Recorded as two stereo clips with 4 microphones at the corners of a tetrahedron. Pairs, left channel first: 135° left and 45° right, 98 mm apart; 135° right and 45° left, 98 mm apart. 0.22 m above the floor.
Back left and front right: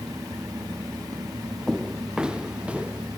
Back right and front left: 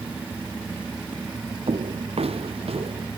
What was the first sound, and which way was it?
Footsteps, 40° left.